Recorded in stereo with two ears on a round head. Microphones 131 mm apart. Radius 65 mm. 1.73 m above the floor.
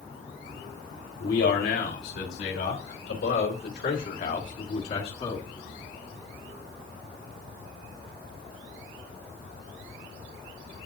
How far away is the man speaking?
About 5 m.